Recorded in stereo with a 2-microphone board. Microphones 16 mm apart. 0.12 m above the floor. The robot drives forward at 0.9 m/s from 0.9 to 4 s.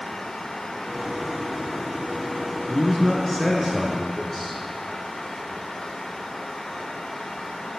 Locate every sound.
2.7 s a man speaking: 25° left (ahead or behind), 1.3 m; by 4.6 s 20° left (ahead or behind), 1.9 m